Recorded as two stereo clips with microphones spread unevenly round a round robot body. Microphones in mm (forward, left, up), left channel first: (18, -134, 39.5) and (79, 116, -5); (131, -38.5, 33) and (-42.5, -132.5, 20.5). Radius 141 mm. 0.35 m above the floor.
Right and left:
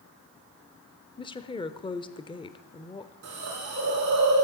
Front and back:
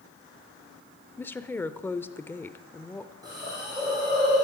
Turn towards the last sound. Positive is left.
turn(degrees=130)